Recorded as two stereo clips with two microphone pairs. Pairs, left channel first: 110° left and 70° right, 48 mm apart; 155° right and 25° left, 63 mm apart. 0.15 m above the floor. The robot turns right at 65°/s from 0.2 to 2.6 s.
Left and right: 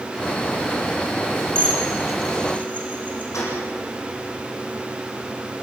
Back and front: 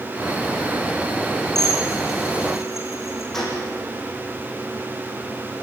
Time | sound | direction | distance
1.6 | dishes clattering | 20° right | 6 m
3.3 | a gunshot | 120° left | 8.5 m